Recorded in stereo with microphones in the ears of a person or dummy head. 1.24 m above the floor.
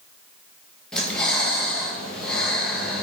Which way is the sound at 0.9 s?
10° left (ahead or behind).